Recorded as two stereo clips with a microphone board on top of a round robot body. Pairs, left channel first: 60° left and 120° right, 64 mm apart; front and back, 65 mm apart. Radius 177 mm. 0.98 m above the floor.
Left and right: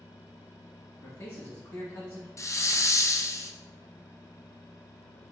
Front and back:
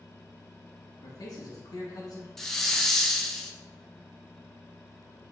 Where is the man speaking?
20° left, 1.1 m.